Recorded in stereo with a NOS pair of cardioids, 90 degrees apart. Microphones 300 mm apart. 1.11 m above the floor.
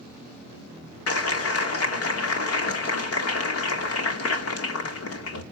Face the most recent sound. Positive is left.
turn(degrees=50)